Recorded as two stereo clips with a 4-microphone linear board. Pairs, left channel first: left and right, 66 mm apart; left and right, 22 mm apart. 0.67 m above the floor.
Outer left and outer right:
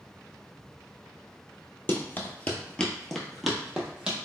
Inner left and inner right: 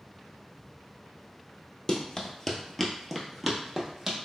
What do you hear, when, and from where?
1.9 s running footsteps: 30° left (ahead or behind), 0.8 m; by 4.2 s 15° right (ahead or behind), 1.1 m